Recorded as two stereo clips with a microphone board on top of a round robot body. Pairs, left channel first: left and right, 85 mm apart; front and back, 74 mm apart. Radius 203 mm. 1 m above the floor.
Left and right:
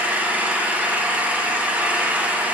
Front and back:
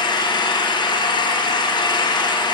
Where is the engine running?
15° right, 1.4 m.